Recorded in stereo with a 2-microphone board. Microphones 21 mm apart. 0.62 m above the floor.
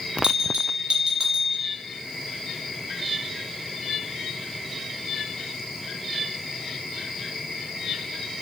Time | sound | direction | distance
0.2 | a bell | 50° right (ahead or behind) | 1.0 m